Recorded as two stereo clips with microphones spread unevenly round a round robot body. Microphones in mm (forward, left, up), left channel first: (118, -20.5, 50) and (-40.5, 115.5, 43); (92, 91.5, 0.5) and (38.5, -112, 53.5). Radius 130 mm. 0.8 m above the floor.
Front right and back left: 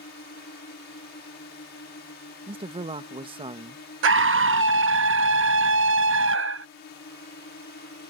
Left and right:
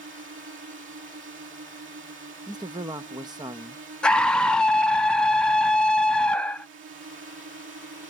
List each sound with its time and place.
0.0 s a drone: 80° right
2.5 s a man speaking: 175° left
4.0 s a scream: 155° left